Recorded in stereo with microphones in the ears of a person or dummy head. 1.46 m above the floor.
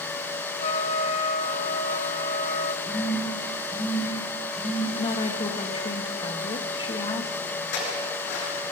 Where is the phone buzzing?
Centre (ahead or behind), 5.5 m.